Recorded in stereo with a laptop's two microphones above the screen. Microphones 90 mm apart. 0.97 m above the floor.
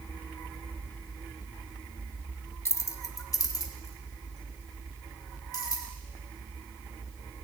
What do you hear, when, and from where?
2.6 s keys jangling: 30° left (ahead or behind), 0.7 m; by 5.8 s 45° left (ahead or behind), 3.5 m